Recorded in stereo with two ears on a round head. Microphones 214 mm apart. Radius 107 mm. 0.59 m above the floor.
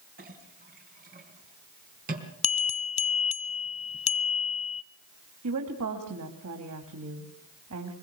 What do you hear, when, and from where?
0.2 s a clink: 40° right (ahead or behind), 4 m
2.4 s a bell: 30° left (ahead or behind), 0.9 m
5.4 s a woman speaking: 75° right (ahead or behind), 3.5 m